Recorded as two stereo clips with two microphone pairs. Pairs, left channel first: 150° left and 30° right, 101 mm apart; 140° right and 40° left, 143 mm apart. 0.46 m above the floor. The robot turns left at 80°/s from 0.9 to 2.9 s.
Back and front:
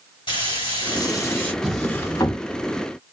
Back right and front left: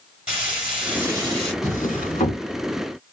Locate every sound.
0.3 s frying: 125° left, 1.9 m; by 1.5 s 75° left, 1.9 m
1.6 s a drawer: 110° right, 1.2 m; by 2.4 s 175° right, 1.2 m